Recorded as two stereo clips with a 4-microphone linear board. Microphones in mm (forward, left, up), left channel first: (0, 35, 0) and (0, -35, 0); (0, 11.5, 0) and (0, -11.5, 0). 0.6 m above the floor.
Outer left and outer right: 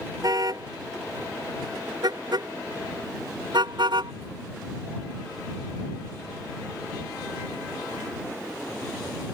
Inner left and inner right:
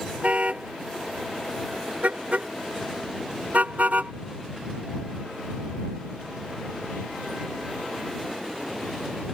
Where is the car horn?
55° right (ahead or behind); by 4.1 s 85° right.